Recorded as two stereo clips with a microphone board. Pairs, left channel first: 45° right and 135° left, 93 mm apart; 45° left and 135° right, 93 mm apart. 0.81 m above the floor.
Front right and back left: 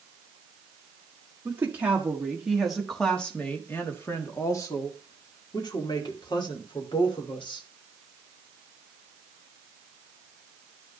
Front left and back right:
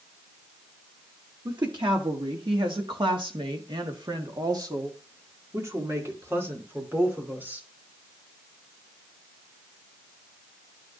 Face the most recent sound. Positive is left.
turn(degrees=-65)